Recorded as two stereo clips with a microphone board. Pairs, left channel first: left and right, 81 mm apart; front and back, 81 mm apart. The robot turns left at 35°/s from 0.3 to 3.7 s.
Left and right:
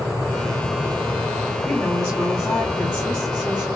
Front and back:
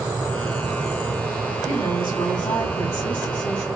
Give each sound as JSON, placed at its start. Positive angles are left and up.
{"t": 1.6, "sound": "a woman speaking", "azimuth_deg": 15, "distance_m": 2.0}